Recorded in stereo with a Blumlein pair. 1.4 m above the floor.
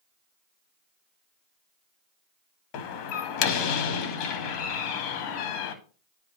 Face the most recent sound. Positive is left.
turn(degrees=40)